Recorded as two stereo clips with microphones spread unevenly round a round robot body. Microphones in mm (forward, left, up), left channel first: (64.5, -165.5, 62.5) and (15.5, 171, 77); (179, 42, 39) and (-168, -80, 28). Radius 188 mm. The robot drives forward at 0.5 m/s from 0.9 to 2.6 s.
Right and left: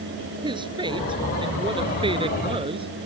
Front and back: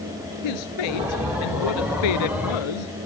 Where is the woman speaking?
20° left; by 2.9 s 25° left.